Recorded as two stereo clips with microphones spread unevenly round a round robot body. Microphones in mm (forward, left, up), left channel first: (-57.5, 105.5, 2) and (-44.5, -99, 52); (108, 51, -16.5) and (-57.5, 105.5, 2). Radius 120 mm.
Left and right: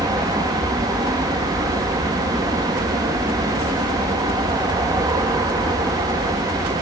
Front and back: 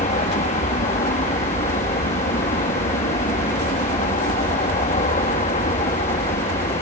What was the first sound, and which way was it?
An aircraft, 10° right.